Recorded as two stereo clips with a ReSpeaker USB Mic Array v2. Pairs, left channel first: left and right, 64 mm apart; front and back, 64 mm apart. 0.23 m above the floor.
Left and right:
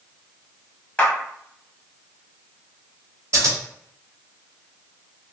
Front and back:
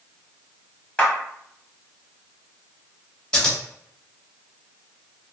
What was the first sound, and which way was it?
A clap, 45° left.